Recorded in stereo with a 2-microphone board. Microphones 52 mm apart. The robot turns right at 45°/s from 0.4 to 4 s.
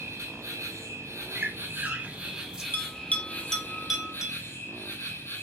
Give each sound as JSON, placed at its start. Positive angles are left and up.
{"t": 0.0, "sound": "an insect", "azimuth_deg": -110, "distance_m": 1.1}
{"t": 1.4, "sound": "a squeak", "side_deg": -45, "distance_m": 1.0}
{"t": 2.7, "sound": "a bell", "side_deg": 45, "distance_m": 0.6}